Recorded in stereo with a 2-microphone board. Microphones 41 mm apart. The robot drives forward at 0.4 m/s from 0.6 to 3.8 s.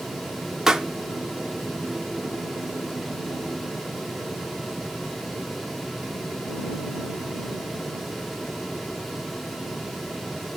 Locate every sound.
0.7 s a pop: 10° right (ahead or behind), 0.6 m